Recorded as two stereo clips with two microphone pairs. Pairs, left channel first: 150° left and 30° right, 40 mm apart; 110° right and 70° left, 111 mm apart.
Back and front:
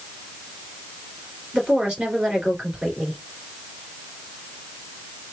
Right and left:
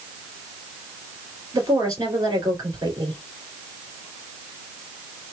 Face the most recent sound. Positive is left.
turn(degrees=30)